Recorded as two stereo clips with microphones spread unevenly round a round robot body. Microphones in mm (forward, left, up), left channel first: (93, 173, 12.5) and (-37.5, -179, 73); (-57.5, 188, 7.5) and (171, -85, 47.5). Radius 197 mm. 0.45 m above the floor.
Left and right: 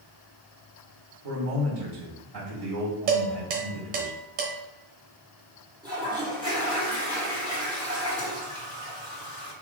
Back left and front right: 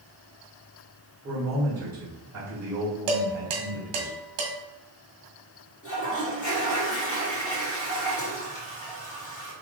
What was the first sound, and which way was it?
A man speaking, 135° right.